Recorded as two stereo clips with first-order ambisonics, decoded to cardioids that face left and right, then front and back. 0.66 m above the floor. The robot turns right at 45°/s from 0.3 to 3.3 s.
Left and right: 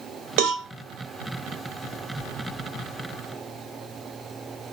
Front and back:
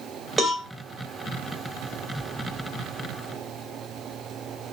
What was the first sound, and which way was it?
A cowbell, 100° right.